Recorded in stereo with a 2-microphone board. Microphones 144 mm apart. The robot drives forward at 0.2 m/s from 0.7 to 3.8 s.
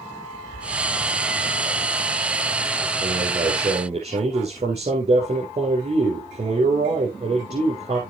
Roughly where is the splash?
Centre.